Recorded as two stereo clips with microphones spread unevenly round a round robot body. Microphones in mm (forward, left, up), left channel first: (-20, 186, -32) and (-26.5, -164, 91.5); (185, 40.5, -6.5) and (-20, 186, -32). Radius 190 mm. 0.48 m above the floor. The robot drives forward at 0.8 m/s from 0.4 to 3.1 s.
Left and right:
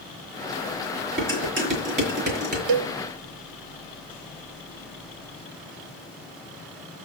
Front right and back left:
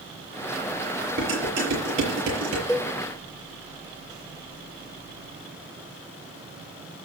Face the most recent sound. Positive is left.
turn(degrees=-145)